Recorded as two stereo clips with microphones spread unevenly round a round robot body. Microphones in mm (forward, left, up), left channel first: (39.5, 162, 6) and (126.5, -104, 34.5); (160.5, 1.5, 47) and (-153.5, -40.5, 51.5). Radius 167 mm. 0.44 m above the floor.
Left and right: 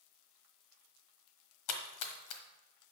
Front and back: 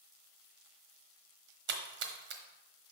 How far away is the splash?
About 1.2 m.